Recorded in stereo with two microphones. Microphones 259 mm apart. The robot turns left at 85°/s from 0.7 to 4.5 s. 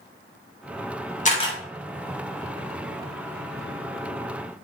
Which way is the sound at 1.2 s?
30° left (ahead or behind).